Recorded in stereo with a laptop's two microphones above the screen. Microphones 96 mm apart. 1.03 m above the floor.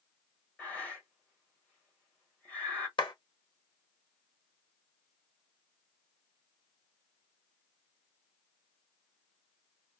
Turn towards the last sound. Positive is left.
turn(degrees=55)  # may be behind; listen again after turning